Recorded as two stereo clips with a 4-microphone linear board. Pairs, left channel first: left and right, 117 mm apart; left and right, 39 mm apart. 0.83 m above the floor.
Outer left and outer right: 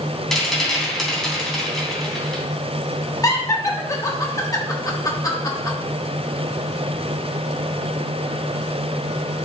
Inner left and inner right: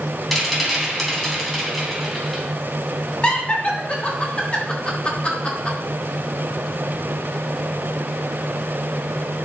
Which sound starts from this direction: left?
Laughter, at 3.2 s.